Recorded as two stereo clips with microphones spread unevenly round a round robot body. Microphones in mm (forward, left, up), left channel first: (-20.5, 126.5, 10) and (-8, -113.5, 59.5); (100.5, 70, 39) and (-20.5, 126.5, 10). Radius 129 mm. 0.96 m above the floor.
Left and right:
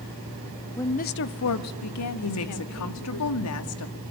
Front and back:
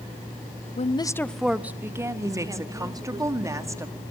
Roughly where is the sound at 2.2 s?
Left.